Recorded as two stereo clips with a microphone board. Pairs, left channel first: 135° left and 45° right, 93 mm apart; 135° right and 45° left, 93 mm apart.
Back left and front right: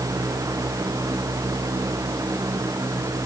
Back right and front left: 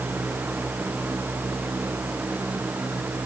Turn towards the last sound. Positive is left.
No sound to turn to.